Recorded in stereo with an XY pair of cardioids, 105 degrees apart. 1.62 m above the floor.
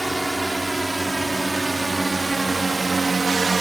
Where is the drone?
10° right; by 3.6 s 30° right.